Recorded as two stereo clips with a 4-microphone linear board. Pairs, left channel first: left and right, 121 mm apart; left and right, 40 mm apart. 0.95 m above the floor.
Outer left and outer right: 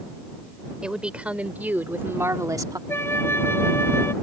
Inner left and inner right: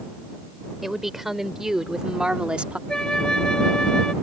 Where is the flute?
20° left (ahead or behind).